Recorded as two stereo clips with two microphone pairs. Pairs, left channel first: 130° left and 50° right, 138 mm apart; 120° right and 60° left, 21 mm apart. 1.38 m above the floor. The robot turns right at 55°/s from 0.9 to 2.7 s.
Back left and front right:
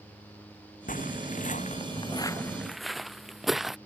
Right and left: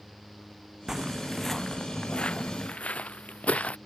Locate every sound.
0.9 s footsteps: 120° left; by 3.8 s 140° right